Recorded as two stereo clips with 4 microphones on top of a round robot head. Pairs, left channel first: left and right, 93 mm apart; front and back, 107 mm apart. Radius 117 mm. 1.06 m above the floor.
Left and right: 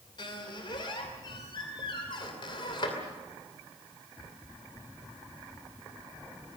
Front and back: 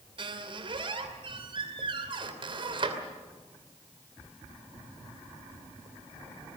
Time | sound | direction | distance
0.2 | a squeak | 140° left | 2.5 m